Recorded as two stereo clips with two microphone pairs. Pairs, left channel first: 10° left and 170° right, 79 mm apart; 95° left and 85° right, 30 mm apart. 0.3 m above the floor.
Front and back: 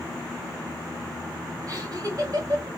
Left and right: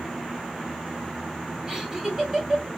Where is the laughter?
160° right, 2 m.